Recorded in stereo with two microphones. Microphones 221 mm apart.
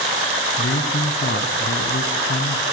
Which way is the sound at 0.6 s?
65° left (ahead or behind).